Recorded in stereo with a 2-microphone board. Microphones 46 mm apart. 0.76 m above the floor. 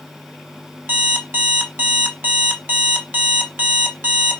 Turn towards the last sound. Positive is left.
turn(degrees=-50)  # may be behind; listen again after turning